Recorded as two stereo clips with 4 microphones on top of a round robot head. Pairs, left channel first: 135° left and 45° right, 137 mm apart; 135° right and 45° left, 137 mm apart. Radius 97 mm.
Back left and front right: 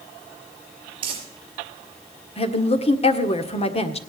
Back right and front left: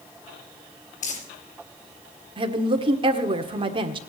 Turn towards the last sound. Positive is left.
turn(degrees=95)